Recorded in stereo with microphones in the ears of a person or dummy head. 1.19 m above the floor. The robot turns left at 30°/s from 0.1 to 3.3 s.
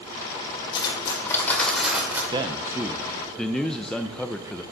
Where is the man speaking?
25° right (ahead or behind), 0.6 m; by 4.6 s 5° left (ahead or behind), 0.6 m.